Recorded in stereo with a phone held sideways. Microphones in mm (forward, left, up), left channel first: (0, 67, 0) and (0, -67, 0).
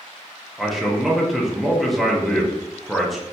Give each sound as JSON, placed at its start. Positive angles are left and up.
{"t": 0.6, "sound": "a man speaking", "side_deg": 0, "distance_m": 0.7}